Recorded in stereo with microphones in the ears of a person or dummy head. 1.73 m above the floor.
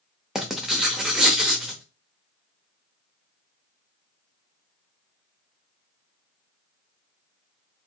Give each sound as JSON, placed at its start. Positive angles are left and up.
{"t": 0.3, "sound": "writing", "side_deg": 0, "distance_m": 0.7}